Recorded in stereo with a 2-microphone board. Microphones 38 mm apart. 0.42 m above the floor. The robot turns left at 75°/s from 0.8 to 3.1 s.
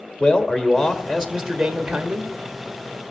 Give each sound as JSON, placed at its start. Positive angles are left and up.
{"t": 0.2, "sound": "a man speaking", "azimuth_deg": 0, "distance_m": 1.2}